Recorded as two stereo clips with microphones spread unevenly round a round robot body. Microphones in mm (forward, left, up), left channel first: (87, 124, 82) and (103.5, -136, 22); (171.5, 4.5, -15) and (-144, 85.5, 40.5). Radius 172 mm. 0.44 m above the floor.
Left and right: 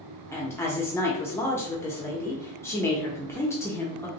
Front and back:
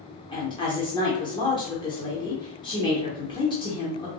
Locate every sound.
0.3 s a woman speaking: 5° right, 0.9 m